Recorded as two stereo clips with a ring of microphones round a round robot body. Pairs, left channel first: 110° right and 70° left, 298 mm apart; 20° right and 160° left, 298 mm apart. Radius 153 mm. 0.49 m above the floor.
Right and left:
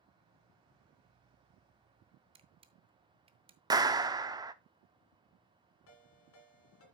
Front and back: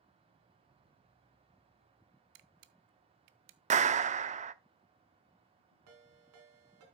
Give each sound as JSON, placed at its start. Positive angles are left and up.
{"t": 2.4, "sound": "a camera shutter", "azimuth_deg": 140, "distance_m": 0.7}
{"t": 3.7, "sound": "a clap", "azimuth_deg": 130, "distance_m": 0.6}
{"t": 5.9, "sound": "a ringtone", "azimuth_deg": -160, "distance_m": 2.0}